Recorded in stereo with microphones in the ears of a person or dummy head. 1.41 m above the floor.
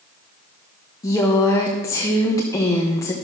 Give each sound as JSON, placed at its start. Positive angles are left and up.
{"t": 1.0, "sound": "a woman speaking", "side_deg": 15, "distance_m": 0.9}